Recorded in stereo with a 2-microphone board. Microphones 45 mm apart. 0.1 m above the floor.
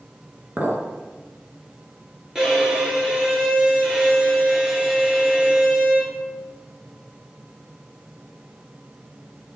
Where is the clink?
35° right (ahead or behind), 1.0 m.